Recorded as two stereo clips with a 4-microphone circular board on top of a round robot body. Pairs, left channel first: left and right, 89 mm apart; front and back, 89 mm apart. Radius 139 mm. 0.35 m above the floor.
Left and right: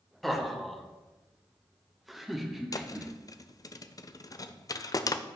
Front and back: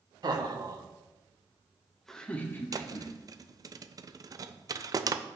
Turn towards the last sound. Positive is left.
turn(degrees=135)